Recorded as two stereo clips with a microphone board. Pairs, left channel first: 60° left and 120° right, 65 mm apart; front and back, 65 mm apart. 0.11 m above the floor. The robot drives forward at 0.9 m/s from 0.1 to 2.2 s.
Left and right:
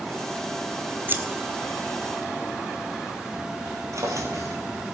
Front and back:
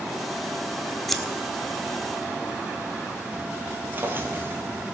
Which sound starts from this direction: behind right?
A drawer, at 3.9 s.